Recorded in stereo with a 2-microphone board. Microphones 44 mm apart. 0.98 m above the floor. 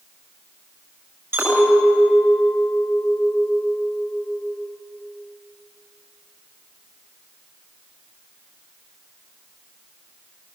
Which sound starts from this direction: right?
A clink, at 1.3 s.